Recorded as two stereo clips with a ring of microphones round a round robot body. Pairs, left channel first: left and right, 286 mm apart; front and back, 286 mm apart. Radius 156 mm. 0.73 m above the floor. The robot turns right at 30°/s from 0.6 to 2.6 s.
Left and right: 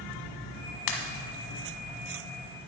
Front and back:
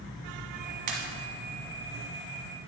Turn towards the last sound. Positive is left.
turn(degrees=165)